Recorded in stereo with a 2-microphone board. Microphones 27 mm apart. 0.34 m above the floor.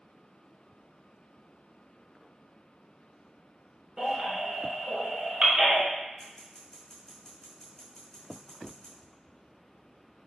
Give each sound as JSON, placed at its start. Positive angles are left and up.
{"t": 4.0, "sound": "a baby crying", "side_deg": -20, "distance_m": 1.4}
{"t": 6.2, "sound": "scissors", "side_deg": 15, "distance_m": 2.0}